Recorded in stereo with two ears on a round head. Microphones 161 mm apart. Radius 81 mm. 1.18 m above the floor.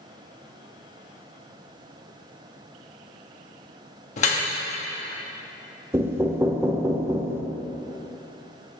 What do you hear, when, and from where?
4.2 s dripping: 45° left (ahead or behind), 1.1 m
5.9 s knocking: 15° right (ahead or behind), 0.6 m